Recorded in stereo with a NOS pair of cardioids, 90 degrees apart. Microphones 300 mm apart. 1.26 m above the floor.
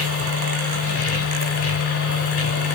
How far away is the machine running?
About 3 m.